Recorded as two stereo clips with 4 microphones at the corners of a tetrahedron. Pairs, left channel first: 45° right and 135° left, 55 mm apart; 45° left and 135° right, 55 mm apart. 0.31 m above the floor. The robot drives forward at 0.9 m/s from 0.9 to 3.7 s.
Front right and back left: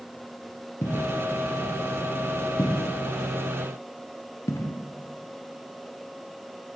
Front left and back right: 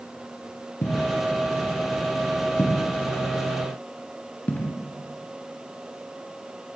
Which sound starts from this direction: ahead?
Footsteps, at 0.8 s.